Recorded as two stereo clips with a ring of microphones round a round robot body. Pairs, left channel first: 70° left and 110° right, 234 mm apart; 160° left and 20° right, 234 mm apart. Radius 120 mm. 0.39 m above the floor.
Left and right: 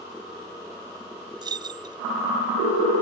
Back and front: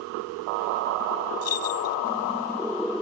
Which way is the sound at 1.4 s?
175° left.